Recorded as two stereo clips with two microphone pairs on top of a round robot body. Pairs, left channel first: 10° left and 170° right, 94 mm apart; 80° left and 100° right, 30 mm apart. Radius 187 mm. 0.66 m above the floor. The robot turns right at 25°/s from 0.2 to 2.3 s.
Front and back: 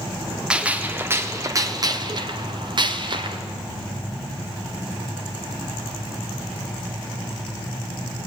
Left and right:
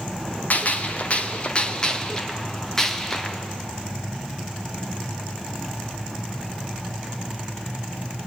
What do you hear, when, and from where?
0.5 s a gunshot: 110° left, 1.2 m; by 3.4 s 155° left, 1.2 m